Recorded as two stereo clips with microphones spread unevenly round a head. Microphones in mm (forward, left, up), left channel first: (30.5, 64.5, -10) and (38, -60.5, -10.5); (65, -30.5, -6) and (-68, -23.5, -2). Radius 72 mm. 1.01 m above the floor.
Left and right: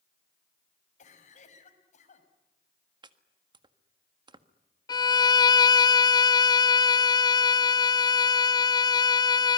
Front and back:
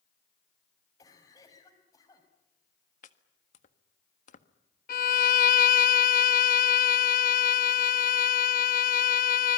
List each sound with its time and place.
1.0 s a cough: 65° left, 5.5 m
3.0 s chopping: 30° right, 1.6 m
4.9 s a violin: 35° left, 0.5 m